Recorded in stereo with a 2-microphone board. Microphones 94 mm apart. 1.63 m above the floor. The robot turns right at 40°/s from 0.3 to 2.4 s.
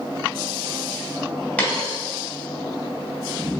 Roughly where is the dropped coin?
Centre.